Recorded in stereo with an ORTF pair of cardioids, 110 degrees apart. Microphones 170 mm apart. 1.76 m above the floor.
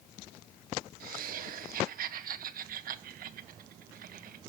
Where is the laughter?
55° right, 1.7 m.